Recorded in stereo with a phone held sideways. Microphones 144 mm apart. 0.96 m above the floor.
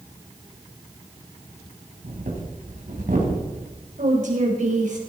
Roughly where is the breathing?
Right.